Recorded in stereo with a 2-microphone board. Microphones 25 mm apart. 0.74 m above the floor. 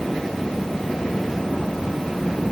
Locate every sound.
Only background noise.